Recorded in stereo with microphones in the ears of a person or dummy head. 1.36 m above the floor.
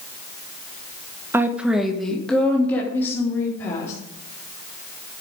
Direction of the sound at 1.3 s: 15° right (ahead or behind).